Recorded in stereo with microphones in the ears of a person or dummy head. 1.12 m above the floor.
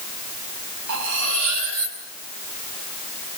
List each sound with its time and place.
0.9 s cutlery clinking: 70° right (ahead or behind), 5 m